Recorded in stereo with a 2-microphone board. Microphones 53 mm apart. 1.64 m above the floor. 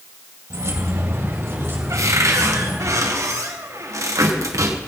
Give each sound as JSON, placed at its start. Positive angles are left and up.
{"t": 0.5, "sound": "keys jangling", "side_deg": -70, "distance_m": 2.0}
{"t": 1.9, "sound": "a cupboard door", "side_deg": -80, "distance_m": 1.6}